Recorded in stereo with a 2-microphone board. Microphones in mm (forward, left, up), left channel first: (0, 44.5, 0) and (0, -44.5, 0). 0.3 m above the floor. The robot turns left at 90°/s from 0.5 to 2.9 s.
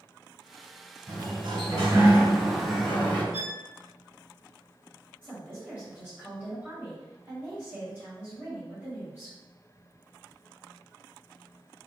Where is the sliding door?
40° right, 1.7 m; by 3.2 s 155° left, 1.7 m.